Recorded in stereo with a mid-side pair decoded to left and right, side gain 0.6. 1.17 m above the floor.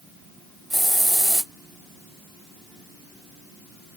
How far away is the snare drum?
I don't hear a snare drum.